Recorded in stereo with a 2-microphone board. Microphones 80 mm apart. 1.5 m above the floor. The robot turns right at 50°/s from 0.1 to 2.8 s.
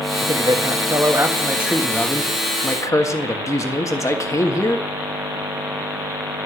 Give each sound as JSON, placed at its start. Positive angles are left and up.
{"t": 0.2, "sound": "a man speaking", "azimuth_deg": -85, "distance_m": 1.7}